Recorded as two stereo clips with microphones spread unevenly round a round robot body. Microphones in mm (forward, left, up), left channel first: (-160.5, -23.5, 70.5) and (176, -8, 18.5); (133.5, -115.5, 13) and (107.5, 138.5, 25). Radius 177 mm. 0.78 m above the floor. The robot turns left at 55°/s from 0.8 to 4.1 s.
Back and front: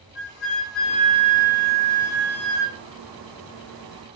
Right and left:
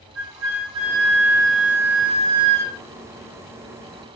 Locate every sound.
0.1 s a flute: 135° left, 4 m; by 2.8 s 25° left, 4 m